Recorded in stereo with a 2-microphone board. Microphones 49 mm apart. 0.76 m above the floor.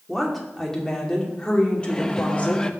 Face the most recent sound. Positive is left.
turn(degrees=15)  # may be behind; listen again after turning